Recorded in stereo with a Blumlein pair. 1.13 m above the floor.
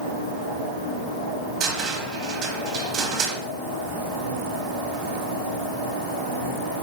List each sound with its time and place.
1.6 s a cupboard door: 30° right, 0.9 m